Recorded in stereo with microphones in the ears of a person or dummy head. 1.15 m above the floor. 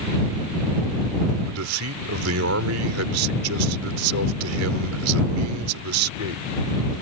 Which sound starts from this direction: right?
A man speaking, at 1.5 s.